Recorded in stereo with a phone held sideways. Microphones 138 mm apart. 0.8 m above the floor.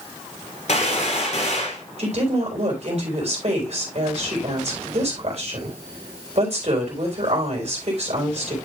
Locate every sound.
0.7 s a gunshot: 55° left (ahead or behind), 3 m
2.0 s a woman speaking: 50° right (ahead or behind), 3.5 m